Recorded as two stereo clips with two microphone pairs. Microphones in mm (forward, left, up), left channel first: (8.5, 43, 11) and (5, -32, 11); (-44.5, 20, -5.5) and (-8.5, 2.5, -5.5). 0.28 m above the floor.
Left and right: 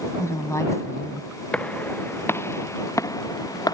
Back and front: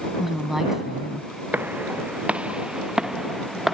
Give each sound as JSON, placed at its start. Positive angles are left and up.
{"t": 0.2, "sound": "a woman speaking", "azimuth_deg": 55}
{"t": 1.5, "sound": "footsteps", "azimuth_deg": 15}